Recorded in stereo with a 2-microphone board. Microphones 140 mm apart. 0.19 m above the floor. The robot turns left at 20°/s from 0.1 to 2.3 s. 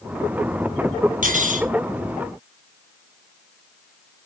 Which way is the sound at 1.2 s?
70° right (ahead or behind).